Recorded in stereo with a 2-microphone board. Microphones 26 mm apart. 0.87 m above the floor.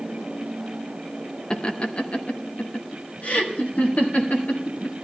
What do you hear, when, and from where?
1.5 s laughter: 35° left (ahead or behind), 0.7 m; by 4.9 s 75° left (ahead or behind), 2.5 m